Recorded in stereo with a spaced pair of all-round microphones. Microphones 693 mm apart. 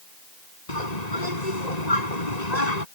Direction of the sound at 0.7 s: 70° left (ahead or behind).